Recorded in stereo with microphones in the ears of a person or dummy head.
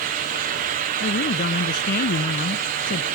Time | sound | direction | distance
1.0 | a woman speaking | 45° left (ahead or behind) | ?